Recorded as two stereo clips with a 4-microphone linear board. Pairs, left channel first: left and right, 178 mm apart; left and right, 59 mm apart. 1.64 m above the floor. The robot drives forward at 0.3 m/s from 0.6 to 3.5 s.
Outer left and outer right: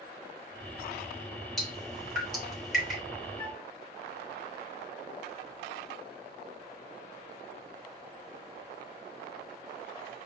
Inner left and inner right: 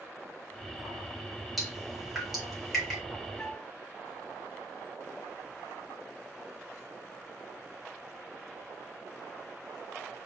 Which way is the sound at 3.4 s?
25° left (ahead or behind).